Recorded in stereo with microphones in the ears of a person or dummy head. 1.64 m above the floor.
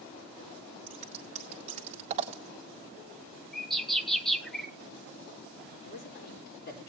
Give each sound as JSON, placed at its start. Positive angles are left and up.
{"t": 0.9, "sound": "scissors", "side_deg": -35, "distance_m": 1.0}
{"t": 3.5, "sound": "a bird", "side_deg": -10, "distance_m": 0.9}
{"t": 5.8, "sound": "a man speaking", "side_deg": 50, "distance_m": 4.5}